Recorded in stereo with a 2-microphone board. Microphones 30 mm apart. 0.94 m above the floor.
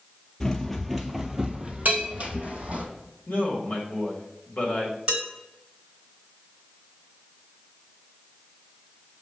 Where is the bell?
55° right (ahead or behind), 0.9 m.